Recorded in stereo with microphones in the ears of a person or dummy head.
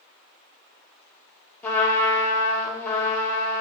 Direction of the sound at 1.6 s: 10° left (ahead or behind).